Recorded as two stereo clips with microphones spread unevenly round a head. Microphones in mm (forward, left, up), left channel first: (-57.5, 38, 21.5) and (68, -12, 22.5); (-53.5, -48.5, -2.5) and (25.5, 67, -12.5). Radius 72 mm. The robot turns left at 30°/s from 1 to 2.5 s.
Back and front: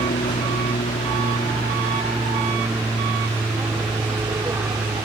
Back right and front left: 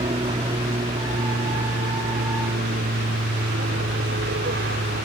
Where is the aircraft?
110° left; by 5.1 s 50° left.